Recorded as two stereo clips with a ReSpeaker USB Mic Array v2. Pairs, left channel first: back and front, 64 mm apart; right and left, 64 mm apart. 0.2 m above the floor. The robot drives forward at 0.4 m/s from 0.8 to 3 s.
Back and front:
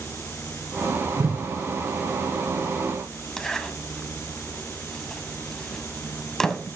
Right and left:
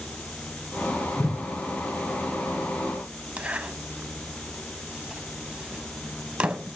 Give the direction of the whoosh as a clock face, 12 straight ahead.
1 o'clock.